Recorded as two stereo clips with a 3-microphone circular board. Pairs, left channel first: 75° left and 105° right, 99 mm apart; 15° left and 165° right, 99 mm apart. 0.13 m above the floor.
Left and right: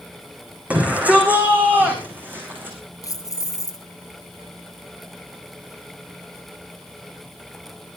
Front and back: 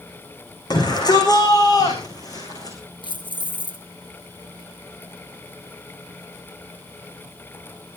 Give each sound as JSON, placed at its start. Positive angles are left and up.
{"t": 0.7, "sound": "a shout", "azimuth_deg": -30, "distance_m": 7.0}
{"t": 3.0, "sound": "keys jangling", "azimuth_deg": 30, "distance_m": 1.7}